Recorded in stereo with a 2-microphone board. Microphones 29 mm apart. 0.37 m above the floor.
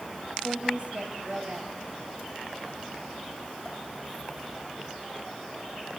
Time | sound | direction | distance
0.4 | a woman speaking | 45° right (ahead or behind) | 3 m